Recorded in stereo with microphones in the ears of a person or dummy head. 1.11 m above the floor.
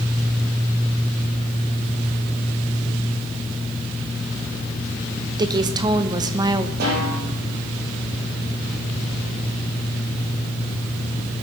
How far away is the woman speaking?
About 1.0 m.